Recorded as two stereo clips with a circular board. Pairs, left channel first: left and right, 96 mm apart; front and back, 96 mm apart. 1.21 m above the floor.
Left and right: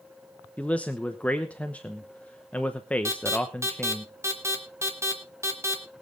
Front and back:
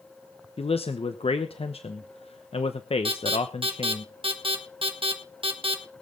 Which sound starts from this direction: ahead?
A man speaking, at 0.6 s.